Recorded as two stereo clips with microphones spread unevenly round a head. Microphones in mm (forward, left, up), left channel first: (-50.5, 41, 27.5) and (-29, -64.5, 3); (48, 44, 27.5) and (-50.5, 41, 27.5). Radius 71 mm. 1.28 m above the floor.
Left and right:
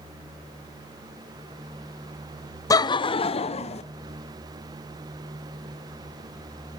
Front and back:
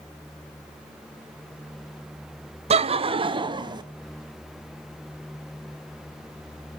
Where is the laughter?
170° left, 0.6 m; by 3.8 s 135° left, 1.4 m.